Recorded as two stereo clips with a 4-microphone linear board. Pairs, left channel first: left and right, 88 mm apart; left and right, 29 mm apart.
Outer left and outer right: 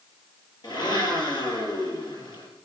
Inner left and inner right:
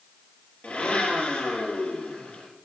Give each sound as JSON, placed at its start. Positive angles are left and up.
{"t": 0.6, "sound": "a blender", "side_deg": 65, "distance_m": 7.0}